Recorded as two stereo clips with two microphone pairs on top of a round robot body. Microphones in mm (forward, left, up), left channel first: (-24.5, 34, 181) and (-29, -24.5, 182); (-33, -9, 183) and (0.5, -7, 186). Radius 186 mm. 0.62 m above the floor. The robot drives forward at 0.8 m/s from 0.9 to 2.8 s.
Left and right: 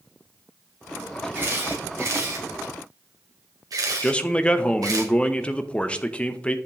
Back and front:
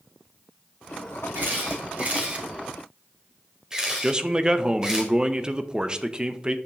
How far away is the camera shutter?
About 2.0 m.